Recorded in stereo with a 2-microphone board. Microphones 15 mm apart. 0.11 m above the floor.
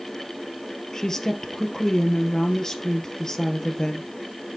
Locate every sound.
0.9 s a woman speaking: 35° left (ahead or behind), 2 m